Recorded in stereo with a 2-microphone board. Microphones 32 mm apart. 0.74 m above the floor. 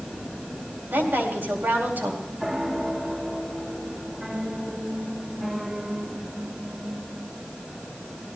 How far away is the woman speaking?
About 4.5 m.